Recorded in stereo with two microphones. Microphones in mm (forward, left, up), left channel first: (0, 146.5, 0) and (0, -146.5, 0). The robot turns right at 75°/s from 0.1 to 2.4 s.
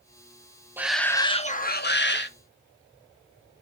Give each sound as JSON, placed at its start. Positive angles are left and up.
{"t": 0.8, "sound": "a shout", "azimuth_deg": -10, "distance_m": 0.8}